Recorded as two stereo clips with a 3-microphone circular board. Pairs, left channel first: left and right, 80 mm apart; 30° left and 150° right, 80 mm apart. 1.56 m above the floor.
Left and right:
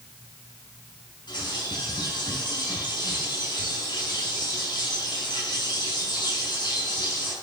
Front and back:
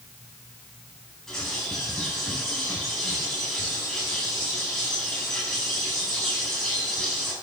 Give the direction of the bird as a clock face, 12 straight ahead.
8 o'clock.